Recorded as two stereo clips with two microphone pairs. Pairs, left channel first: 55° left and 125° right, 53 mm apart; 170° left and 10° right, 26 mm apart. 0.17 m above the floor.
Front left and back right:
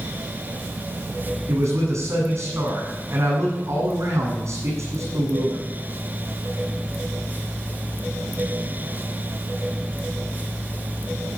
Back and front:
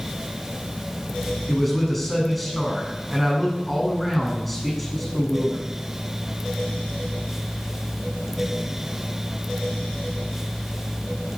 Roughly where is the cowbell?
No cowbell in this recording.